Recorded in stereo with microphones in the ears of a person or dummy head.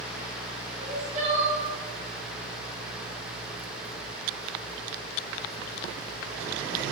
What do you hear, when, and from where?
0.8 s crying: 40° right (ahead or behind), 0.6 m